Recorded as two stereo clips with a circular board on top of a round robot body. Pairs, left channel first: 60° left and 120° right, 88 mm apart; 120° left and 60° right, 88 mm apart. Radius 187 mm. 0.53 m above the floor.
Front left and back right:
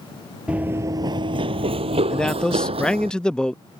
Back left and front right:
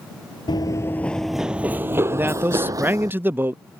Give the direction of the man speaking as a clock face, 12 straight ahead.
12 o'clock.